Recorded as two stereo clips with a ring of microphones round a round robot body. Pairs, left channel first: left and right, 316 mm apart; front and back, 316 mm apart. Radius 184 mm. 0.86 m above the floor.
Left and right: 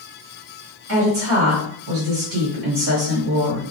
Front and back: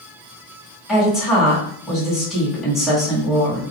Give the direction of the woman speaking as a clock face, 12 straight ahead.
3 o'clock.